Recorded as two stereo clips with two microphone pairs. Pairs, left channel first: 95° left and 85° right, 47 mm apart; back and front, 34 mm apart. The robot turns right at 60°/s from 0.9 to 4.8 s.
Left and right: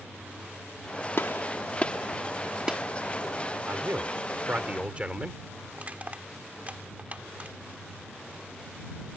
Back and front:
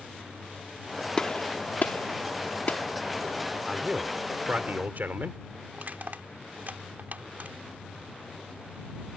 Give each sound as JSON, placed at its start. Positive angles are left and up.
{"t": 1.2, "sound": "a gunshot", "azimuth_deg": 115}
{"t": 3.7, "sound": "a man speaking", "azimuth_deg": -90}
{"t": 5.7, "sound": "crushing", "azimuth_deg": -25}